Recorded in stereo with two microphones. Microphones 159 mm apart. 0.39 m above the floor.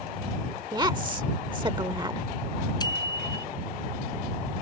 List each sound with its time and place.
0.7 s a woman speaking: 25° right (ahead or behind)
2.8 s a bicycle bell: 25° left (ahead or behind)